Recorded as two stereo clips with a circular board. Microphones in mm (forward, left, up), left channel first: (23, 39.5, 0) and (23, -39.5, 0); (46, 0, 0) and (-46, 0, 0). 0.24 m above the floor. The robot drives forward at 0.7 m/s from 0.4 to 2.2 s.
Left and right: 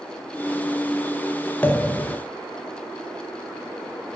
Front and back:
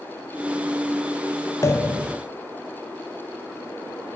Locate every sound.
1.6 s a pop: 35° left, 0.8 m; by 2.2 s 80° left, 0.6 m